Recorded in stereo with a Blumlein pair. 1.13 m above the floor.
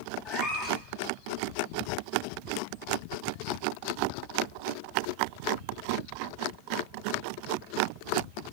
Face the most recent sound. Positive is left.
turn(degrees=35)